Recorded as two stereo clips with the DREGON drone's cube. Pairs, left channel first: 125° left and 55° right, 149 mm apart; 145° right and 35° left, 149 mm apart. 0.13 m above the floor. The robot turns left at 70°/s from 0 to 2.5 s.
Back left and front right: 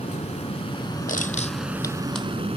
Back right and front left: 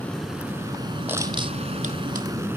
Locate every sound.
0.0 s an aircraft: 145° left; by 2.6 s 30° right
1.1 s crushing: 110° left; by 2.3 s 30° left